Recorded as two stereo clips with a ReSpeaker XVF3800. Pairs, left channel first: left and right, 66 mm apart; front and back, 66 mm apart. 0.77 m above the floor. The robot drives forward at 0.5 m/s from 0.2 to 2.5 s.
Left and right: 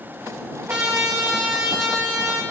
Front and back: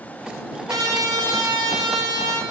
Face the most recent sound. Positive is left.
turn(degrees=-170)